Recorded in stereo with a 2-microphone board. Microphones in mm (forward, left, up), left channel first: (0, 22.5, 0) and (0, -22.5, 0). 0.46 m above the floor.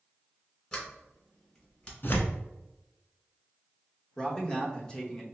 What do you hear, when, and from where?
0.7 s a sliding door: 25° left (ahead or behind), 1.4 m
2.0 s tearing paper: 50° left (ahead or behind), 0.8 m
4.2 s a man speaking: 20° left (ahead or behind), 0.8 m